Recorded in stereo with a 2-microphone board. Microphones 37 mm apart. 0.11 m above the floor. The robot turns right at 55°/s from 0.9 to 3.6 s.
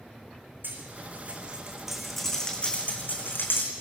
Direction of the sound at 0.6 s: 65° right (ahead or behind).